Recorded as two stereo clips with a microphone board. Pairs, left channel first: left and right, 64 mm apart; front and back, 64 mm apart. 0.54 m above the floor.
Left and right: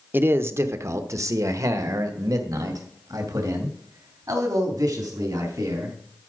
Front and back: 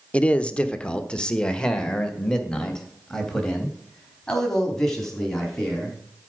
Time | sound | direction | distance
0.1 | a man speaking | 60° right | 0.8 m